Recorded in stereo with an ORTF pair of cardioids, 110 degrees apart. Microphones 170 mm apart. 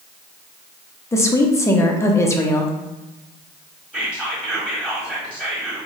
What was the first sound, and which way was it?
A woman speaking, 15° left.